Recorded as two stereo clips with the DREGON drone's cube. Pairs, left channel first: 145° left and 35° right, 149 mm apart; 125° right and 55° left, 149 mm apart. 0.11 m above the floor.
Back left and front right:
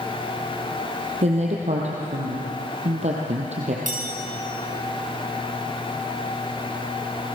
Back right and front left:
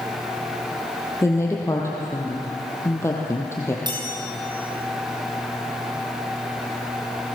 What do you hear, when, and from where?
1.2 s a woman speaking: 55° right, 2.5 m
3.9 s a chime: 5° right, 3.5 m